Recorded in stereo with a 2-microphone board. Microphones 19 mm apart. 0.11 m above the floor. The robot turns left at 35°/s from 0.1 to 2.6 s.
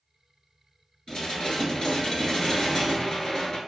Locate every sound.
1.1 s dishes clattering: 100° left, 1.3 m; by 3.6 s 45° left, 1.3 m